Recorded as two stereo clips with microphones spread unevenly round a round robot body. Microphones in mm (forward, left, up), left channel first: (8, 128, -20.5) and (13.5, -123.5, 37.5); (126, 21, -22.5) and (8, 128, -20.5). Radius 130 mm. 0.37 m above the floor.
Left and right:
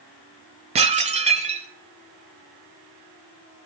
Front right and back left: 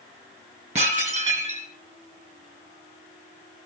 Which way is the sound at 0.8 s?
160° right.